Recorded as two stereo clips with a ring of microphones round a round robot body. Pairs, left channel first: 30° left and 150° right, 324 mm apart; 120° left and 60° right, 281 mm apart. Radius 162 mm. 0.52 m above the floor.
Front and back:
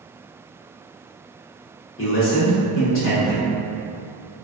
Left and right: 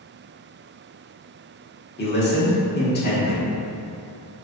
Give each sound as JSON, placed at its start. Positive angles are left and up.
{"t": 2.0, "sound": "a man speaking", "azimuth_deg": 75, "distance_m": 1.0}